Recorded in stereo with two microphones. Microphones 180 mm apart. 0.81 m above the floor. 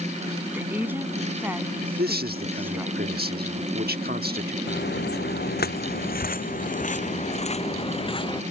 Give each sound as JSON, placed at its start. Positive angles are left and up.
{"t": 0.5, "sound": "a woman speaking", "side_deg": -10}
{"t": 2.0, "sound": "a man speaking", "side_deg": -65}
{"t": 4.7, "sound": "footsteps", "side_deg": 75}